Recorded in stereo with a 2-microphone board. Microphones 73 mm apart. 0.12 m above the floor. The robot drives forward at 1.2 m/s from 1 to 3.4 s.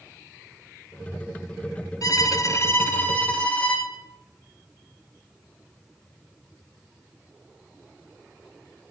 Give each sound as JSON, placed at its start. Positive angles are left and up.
{"t": 2.0, "sound": "a violin", "side_deg": 55, "distance_m": 0.6}